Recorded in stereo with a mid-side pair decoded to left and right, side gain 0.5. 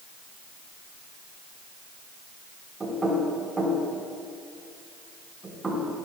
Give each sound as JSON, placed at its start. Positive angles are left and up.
{"t": 2.8, "sound": "knocking", "azimuth_deg": -25, "distance_m": 4.5}